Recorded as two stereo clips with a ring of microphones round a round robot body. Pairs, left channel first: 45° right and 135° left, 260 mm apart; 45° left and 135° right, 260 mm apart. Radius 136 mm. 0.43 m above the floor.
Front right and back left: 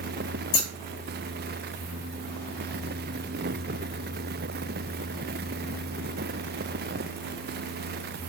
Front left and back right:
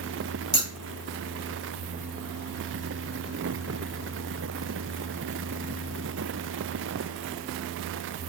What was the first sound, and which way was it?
Scissors, 40° right.